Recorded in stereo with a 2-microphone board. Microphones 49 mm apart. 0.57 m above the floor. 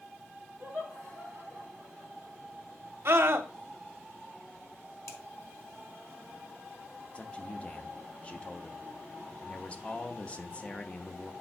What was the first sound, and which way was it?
Laughter, 45° right (ahead or behind).